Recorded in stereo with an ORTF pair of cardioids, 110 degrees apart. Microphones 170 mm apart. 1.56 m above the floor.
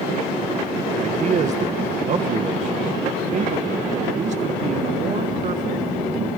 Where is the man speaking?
45° right, 1.4 m.